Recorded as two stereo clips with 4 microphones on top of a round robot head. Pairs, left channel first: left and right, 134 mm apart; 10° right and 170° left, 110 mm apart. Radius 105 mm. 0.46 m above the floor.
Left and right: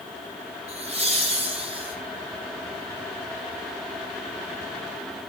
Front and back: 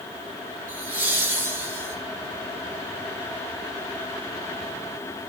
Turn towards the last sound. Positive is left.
turn(degrees=-135)